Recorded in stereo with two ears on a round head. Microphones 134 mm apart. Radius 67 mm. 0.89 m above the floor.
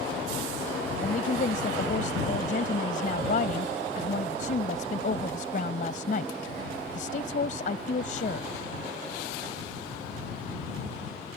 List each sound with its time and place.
1.0 s a woman speaking: 55° left (ahead or behind)